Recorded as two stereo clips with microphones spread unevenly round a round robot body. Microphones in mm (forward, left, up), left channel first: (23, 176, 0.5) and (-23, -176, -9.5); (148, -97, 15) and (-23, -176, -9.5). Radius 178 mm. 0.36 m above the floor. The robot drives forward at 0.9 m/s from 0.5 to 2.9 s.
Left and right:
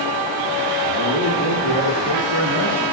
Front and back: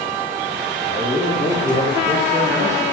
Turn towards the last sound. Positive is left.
turn(degrees=150)